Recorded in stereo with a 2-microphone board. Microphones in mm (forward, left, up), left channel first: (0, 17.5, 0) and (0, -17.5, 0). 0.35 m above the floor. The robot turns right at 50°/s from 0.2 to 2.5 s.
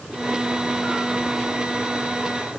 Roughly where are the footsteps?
I don't hear footsteps.